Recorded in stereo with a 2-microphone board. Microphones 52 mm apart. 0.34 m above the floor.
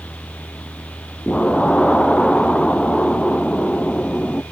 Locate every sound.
1.3 s an explosion: 20° left (ahead or behind), 0.6 m